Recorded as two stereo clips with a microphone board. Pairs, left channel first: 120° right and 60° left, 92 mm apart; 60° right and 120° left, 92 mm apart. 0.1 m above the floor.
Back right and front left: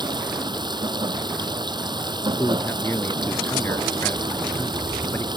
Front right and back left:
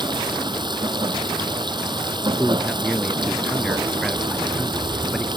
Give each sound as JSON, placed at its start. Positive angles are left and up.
{"t": 0.0, "sound": "running water", "azimuth_deg": 90}
{"t": 2.4, "sound": "a man speaking", "azimuth_deg": -150}